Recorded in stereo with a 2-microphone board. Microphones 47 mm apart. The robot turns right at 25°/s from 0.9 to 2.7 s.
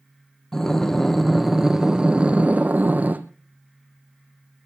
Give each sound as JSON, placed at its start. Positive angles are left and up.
{"t": 0.5, "sound": "breathing", "azimuth_deg": 170, "distance_m": 1.4}